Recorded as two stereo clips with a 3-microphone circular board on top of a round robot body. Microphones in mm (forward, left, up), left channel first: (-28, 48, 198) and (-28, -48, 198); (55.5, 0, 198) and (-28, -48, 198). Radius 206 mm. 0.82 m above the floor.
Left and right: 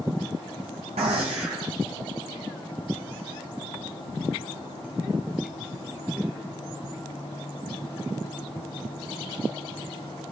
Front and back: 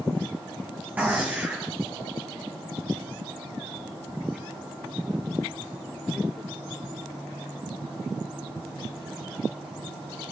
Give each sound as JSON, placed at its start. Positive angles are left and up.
{"t": 1.0, "sound": "a gunshot", "azimuth_deg": -80, "distance_m": 1.0}